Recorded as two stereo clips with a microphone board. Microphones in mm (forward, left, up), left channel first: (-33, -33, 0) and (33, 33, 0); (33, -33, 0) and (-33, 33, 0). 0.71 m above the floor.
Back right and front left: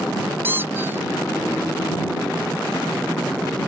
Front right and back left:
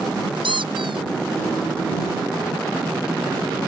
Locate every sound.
0.4 s a squeak: 110° left